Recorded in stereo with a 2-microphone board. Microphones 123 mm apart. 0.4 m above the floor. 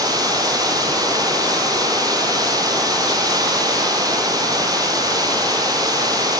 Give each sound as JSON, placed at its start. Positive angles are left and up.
{"t": 0.0, "sound": "running water", "side_deg": -30, "distance_m": 5.5}